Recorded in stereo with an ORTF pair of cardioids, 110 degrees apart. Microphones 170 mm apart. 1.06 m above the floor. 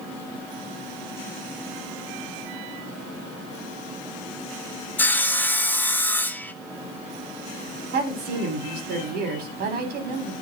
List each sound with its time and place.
5.0 s sawing: 10° left, 1.0 m
7.9 s a woman speaking: 65° right, 3.5 m